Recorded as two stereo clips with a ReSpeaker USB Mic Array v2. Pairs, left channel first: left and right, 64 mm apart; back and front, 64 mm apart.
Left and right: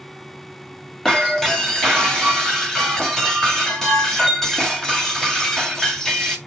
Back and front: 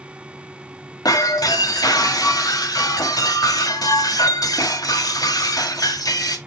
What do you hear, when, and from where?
1.1 s breaking glass: 175° left, 2.0 m